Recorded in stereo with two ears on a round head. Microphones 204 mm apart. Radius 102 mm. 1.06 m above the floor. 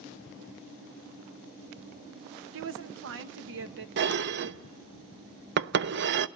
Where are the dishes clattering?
50° right (ahead or behind), 0.5 m.